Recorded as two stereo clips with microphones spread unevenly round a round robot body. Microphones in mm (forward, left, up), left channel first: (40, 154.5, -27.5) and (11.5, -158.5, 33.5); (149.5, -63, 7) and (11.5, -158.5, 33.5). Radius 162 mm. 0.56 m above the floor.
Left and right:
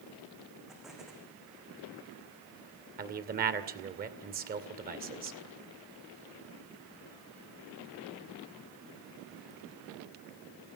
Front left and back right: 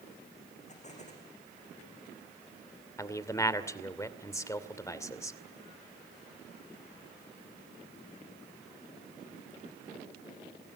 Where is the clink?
No clink in this recording.